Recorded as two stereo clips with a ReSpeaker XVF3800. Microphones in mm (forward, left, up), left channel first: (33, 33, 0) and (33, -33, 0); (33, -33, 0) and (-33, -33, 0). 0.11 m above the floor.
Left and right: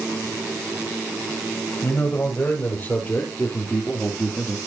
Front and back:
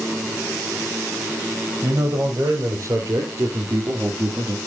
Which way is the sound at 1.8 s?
140° left.